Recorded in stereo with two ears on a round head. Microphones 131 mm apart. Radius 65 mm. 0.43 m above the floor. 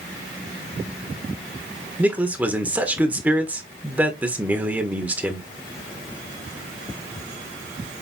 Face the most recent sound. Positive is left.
turn(degrees=-10)  # may be behind; listen again after turning